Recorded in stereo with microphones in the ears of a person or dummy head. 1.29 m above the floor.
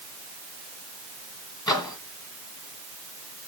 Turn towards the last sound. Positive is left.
turn(degrees=20)  # may be behind; listen again after turning